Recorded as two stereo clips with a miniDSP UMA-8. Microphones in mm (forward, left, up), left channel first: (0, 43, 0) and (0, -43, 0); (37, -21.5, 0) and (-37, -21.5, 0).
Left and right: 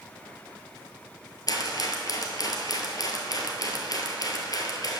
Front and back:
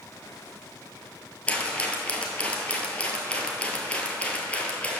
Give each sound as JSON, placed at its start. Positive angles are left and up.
{"t": 1.5, "sound": "a rattle", "azimuth_deg": 70, "distance_m": 1.1}